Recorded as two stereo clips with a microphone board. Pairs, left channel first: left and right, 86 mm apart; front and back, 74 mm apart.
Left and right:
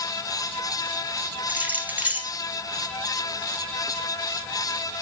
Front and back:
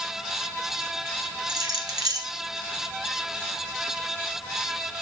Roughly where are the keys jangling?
Behind.